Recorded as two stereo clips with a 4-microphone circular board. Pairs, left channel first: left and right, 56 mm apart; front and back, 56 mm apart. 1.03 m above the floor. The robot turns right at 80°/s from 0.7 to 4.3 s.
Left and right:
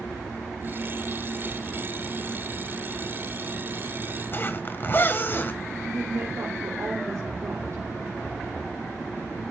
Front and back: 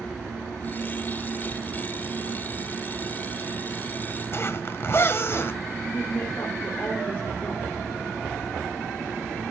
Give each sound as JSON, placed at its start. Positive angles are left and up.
{"t": 4.3, "sound": "a zipper", "azimuth_deg": 40, "distance_m": 1.5}
{"t": 5.8, "sound": "a woman speaking", "azimuth_deg": -55, "distance_m": 3.0}